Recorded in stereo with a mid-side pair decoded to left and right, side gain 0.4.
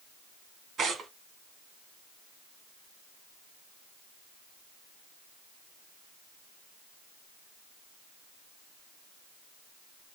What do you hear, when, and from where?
0.8 s tearing paper: 60° right, 3 m